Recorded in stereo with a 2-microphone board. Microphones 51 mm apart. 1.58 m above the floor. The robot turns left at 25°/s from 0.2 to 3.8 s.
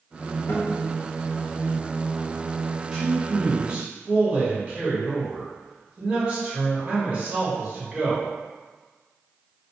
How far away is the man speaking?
About 1.4 m.